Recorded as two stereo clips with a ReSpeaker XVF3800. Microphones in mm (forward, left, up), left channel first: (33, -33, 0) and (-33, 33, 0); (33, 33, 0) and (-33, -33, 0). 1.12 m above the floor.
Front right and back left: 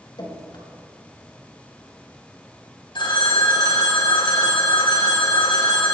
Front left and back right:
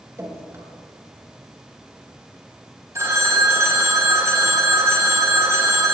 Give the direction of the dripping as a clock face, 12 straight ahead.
3 o'clock.